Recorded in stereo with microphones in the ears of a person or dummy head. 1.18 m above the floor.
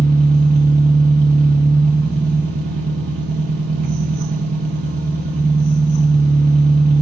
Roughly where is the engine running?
Right.